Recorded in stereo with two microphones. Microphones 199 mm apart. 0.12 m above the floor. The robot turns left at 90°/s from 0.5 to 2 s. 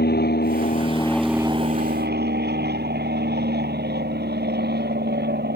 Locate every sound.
0.0 s an aircraft: 65° left; by 5.6 s 70° right